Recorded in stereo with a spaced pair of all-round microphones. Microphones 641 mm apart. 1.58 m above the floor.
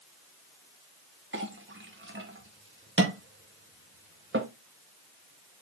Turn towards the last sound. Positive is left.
turn(degrees=-20)  # may be behind; listen again after turning